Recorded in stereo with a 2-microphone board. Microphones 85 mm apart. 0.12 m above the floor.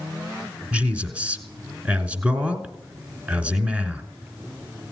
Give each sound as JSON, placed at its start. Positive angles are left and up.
{"t": 0.7, "sound": "a man speaking", "side_deg": -15, "distance_m": 1.1}